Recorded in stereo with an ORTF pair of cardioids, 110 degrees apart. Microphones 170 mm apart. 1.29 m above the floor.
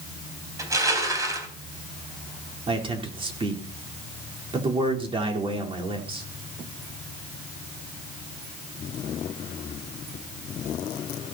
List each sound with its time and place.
0.6 s crushing: 20° right, 3.5 m
2.7 s a man speaking: 30° right, 4 m